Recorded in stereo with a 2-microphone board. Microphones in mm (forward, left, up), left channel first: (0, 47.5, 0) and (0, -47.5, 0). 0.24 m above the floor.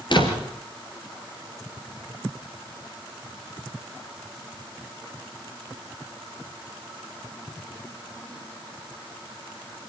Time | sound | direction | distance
0.1 | a door slam | 55° left (ahead or behind) | 3 m